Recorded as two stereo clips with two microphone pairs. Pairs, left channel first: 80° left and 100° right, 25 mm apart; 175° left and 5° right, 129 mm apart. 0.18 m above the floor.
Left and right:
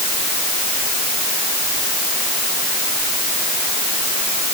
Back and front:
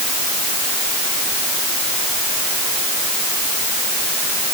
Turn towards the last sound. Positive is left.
No sound to turn to.